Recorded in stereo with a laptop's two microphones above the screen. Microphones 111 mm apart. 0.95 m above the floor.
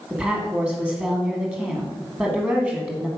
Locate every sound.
0.1 s a woman speaking: 10° right (ahead or behind), 1.3 m